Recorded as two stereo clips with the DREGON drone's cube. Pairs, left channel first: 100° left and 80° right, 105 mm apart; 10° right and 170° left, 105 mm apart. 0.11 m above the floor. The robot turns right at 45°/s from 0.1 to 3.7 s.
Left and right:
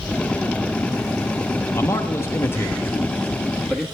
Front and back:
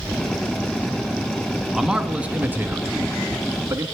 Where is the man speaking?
90° left, 1.1 m; by 3.9 s 175° left, 1.1 m.